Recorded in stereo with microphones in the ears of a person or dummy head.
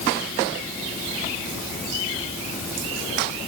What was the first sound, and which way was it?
Only background noise.